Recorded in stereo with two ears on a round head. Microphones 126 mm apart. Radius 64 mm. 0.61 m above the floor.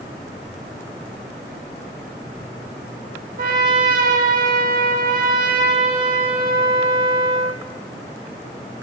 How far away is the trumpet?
About 0.9 m.